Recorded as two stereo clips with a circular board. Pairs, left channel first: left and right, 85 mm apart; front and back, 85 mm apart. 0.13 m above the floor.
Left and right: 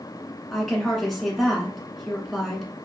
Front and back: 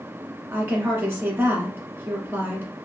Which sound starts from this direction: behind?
A woman speaking, at 0.5 s.